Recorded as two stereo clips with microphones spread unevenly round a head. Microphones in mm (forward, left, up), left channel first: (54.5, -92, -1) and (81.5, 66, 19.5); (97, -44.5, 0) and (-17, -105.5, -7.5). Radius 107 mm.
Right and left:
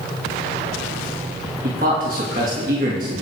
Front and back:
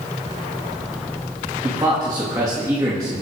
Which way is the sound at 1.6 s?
130° left.